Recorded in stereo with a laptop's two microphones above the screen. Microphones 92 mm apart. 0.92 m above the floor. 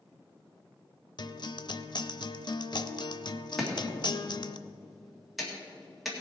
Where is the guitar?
55° left (ahead or behind), 0.6 m.